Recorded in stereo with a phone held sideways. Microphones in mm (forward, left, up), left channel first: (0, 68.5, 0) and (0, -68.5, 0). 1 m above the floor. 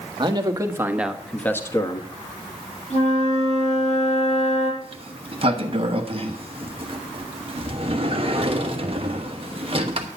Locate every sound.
0.2 s a man speaking: 35° right (ahead or behind), 1.5 m; by 2.1 s 35° left (ahead or behind), 1.3 m
2.9 s a flute: 55° left (ahead or behind), 6.5 m
4.8 s a sliding door: 40° right (ahead or behind), 1.2 m